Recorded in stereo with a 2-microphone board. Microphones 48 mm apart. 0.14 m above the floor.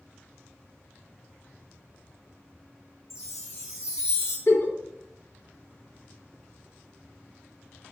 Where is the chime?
85° left, 1.4 m.